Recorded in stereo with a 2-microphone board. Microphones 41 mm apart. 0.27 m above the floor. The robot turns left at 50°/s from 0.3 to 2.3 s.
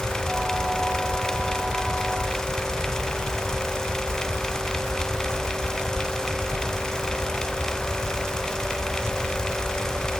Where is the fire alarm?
I don't hear a fire alarm.